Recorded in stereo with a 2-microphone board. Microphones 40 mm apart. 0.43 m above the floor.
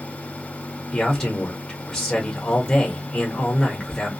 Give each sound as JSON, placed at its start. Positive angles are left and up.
{"t": 0.9, "sound": "a man speaking", "side_deg": 15, "distance_m": 0.9}